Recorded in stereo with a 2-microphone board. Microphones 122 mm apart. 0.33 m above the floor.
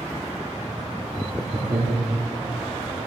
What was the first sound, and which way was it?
Laughter, 55° right (ahead or behind).